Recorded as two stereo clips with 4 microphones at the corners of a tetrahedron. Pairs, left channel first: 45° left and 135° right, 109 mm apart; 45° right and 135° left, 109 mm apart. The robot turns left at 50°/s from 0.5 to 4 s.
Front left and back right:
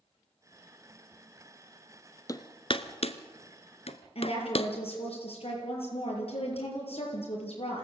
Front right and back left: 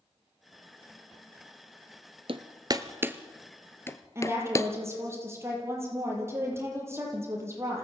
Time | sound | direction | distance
2.3 | hammering | 105° left | 1.1 m
4.2 | a woman speaking | 70° left | 7.5 m